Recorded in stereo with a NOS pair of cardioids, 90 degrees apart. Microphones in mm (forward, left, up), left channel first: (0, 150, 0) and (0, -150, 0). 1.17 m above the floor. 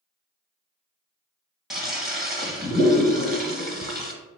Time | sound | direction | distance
1.7 | a toilet flushing | straight ahead | 0.8 m